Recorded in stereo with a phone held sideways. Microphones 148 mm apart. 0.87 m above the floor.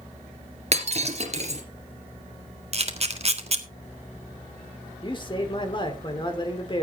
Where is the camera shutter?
45° right (ahead or behind), 1.6 m.